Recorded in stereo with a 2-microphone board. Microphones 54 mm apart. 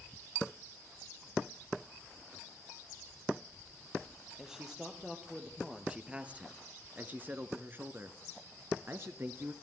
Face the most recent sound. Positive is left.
turn(degrees=-45)  # may be behind; listen again after turning